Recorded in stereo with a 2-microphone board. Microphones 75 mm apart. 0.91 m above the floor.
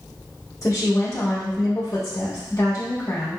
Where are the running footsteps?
I don't hear running footsteps.